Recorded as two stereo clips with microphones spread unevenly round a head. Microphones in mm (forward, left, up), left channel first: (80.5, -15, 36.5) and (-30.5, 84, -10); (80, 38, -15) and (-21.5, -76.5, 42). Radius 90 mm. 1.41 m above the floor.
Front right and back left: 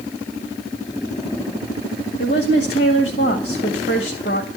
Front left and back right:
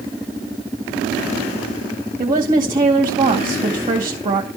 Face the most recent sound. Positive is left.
turn(degrees=-85)